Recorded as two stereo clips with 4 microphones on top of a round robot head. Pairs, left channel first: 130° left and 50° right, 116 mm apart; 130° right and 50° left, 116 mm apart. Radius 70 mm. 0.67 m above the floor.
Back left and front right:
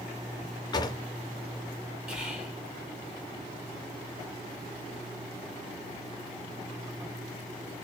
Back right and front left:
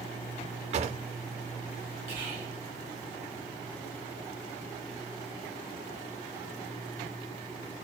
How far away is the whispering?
About 1.2 m.